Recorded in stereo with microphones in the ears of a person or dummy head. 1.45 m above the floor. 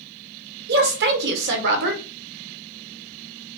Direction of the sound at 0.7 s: 70° right (ahead or behind).